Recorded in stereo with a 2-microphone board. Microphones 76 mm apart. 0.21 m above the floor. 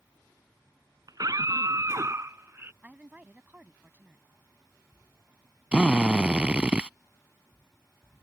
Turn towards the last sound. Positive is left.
turn(degrees=-15)  # may be behind; listen again after turning